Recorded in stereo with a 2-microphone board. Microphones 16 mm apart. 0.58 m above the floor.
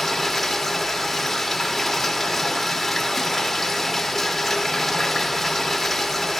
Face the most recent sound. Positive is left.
turn(degrees=10)  # may be behind; listen again after turning